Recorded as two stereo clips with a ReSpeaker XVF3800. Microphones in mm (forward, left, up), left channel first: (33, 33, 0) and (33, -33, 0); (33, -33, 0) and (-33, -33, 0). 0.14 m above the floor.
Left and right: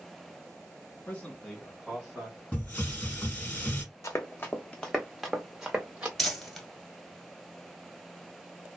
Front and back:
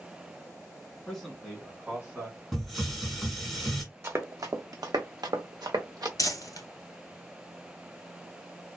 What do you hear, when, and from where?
1.1 s a man speaking: 70° left, 1.4 m; by 2.4 s 135° right, 1.5 m
2.5 s a hiss: 85° left, 1.1 m
4.0 s running footsteps: 130° left, 0.7 m; by 6.1 s 155° right, 1.0 m
6.2 s crumpling: 5° left, 1.1 m